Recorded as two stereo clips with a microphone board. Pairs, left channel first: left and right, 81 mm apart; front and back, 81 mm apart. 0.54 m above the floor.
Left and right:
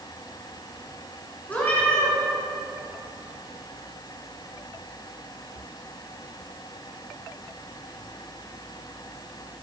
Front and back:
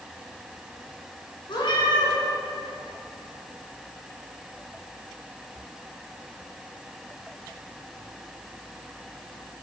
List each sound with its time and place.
1.5 s a cat meowing: 20° left, 1.7 m